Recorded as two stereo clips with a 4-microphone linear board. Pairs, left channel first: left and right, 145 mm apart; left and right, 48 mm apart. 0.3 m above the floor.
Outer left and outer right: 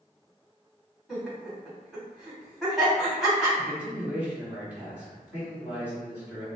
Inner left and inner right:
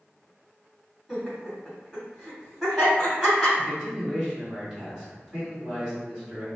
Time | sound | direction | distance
1.1 | laughter | centre (ahead or behind) | 1.8 m
3.6 | a man speaking | 10° right (ahead or behind) | 1.7 m